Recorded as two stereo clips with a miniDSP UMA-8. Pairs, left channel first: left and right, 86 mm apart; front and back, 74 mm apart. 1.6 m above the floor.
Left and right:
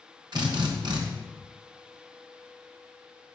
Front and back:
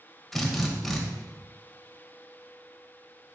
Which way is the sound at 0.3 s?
90° right.